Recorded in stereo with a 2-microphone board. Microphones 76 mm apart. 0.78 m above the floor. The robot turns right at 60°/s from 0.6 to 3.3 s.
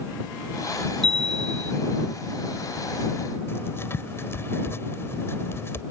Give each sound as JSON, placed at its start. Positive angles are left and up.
{"t": 1.0, "sound": "a chime", "azimuth_deg": -100}
{"t": 3.5, "sound": "writing", "side_deg": 30}